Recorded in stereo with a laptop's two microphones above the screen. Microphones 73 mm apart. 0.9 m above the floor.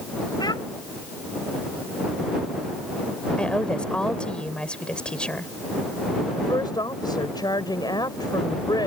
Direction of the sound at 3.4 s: 15° left (ahead or behind).